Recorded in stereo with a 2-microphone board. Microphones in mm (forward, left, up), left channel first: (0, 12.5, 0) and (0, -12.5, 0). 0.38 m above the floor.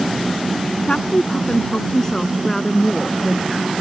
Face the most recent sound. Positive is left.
turn(degrees=-5)  # may be behind; listen again after turning